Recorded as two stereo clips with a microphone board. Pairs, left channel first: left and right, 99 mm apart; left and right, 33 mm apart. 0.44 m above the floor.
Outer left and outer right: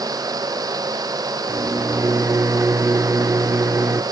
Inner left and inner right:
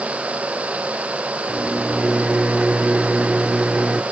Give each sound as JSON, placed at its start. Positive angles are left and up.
{"t": 1.5, "sound": "a microwave", "side_deg": -30, "distance_m": 0.5}